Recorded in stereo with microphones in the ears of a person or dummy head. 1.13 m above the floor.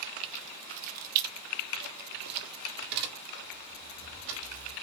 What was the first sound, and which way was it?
Keys jangling, 35° right (ahead or behind).